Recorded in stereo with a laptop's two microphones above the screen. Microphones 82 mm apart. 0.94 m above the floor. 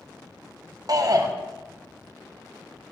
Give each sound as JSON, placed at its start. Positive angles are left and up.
{"t": 0.9, "sound": "a shout", "side_deg": -50, "distance_m": 0.9}